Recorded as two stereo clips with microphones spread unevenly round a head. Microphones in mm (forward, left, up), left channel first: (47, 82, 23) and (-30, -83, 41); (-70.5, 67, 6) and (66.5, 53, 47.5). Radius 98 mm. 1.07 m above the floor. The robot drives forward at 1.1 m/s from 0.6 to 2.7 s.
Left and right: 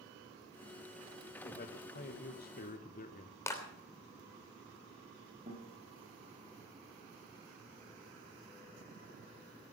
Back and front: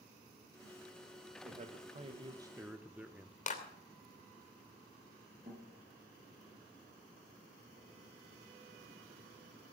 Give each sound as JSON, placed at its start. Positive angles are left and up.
{"t": 1.4, "sound": "a man speaking", "azimuth_deg": 30, "distance_m": 1.8}
{"t": 3.5, "sound": "a clap", "azimuth_deg": 140, "distance_m": 3.0}
{"t": 5.5, "sound": "a guitar", "azimuth_deg": -60, "distance_m": 7.5}